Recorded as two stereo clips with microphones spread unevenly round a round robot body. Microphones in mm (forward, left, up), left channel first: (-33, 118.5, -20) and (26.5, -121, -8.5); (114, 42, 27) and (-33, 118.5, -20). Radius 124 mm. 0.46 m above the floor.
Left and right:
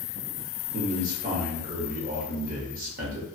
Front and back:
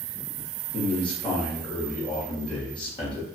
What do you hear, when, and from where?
0.7 s a man speaking: 95° right, 0.8 m